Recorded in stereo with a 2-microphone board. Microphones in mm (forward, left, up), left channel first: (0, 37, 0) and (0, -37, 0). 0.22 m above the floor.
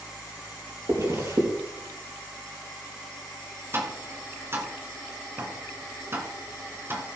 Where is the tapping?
35° right (ahead or behind), 1.8 m.